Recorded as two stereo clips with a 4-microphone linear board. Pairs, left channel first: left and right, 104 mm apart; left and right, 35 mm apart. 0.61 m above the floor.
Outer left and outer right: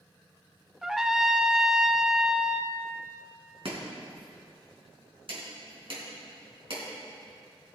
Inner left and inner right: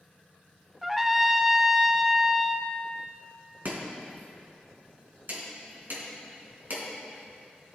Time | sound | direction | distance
0.8 | a trumpet | 5° right (ahead or behind) | 0.6 m
3.6 | chopping | 65° right (ahead or behind) | 3.5 m